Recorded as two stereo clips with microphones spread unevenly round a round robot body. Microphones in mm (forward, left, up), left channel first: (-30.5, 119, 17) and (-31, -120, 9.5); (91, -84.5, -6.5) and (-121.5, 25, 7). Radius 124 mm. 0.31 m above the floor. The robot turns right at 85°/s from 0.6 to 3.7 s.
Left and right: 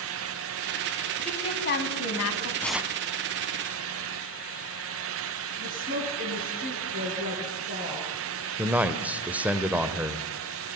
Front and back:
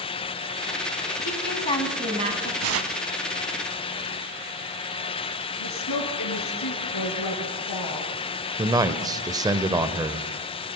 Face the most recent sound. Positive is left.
turn(degrees=-155)